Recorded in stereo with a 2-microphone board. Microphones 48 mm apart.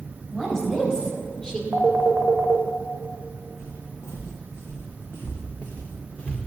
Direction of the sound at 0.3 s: 10° left (ahead or behind).